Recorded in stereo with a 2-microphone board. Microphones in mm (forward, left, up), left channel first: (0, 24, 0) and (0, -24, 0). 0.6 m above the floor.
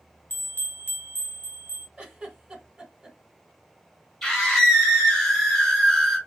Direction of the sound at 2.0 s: 20° right (ahead or behind).